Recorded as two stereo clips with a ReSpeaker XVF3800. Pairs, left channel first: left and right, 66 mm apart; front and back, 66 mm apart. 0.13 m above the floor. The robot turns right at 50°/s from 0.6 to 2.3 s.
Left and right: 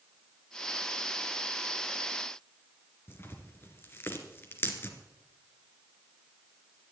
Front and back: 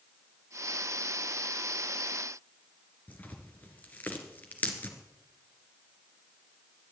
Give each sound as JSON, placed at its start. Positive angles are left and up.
{"t": 3.1, "sound": "tearing paper", "azimuth_deg": 50, "distance_m": 2.5}